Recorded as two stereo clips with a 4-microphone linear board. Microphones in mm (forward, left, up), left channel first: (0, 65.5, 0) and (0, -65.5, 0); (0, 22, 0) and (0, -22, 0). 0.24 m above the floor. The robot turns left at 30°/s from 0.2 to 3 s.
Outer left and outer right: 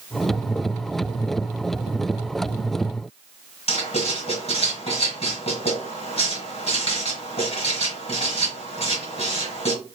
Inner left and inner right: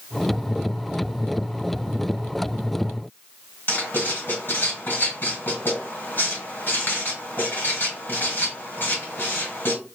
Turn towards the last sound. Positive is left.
turn(degrees=50)  # may be behind; listen again after turning